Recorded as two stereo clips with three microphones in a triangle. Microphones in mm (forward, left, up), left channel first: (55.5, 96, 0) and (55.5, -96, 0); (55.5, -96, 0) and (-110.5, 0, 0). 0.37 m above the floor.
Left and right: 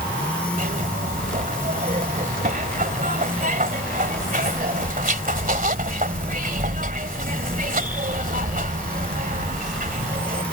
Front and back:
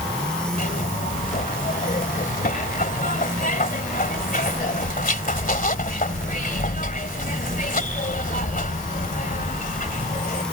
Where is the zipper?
60° right.